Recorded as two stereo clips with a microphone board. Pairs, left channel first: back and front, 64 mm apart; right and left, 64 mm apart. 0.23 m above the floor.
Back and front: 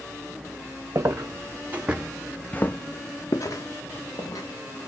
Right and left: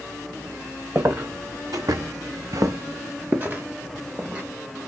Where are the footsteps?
40° left, 0.9 m; by 4.4 s 165° left, 1.3 m.